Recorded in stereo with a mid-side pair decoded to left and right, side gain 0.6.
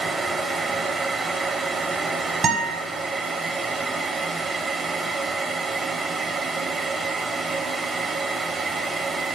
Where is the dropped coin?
No dropped coin in this recording.